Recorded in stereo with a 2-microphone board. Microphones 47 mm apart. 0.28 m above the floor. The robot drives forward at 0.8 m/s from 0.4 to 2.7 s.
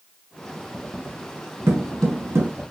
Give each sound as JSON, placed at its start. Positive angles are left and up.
{"t": 1.7, "sound": "footsteps", "side_deg": -70, "distance_m": 1.2}